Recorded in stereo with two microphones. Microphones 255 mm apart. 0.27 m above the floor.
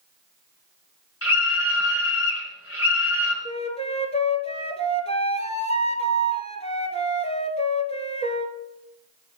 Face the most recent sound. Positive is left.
turn(degrees=25)  # may be behind; listen again after turning